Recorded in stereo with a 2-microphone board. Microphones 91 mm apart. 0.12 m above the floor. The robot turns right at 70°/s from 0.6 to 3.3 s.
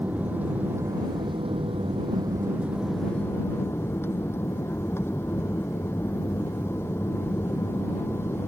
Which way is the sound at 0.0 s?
160° right.